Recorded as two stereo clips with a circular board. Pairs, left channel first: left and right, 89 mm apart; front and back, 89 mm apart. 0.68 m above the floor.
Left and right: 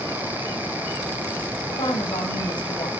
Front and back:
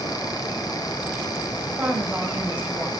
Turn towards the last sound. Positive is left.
turn(degrees=105)